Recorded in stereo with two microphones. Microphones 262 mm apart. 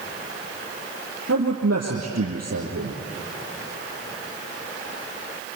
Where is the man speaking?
70° right (ahead or behind), 4 m.